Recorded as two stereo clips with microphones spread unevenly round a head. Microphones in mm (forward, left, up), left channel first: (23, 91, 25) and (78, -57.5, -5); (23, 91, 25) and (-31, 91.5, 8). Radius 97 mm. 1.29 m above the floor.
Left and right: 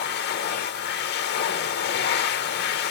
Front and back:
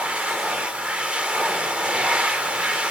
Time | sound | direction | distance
0.0 | a machine running | 105° left | 0.9 m